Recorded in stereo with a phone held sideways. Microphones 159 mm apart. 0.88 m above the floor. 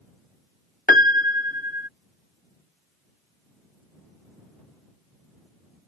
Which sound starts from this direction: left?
A piano, at 0.9 s.